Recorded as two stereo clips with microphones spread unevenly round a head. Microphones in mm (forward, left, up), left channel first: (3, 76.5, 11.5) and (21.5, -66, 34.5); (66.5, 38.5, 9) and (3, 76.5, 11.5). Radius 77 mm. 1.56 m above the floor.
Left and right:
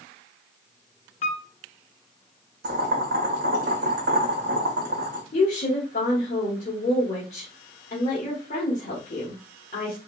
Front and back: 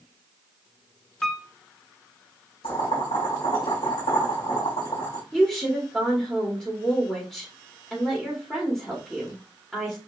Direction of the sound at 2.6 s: 65° right.